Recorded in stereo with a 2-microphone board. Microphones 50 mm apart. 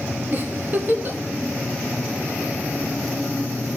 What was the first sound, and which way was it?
A giggle, 45° right (ahead or behind).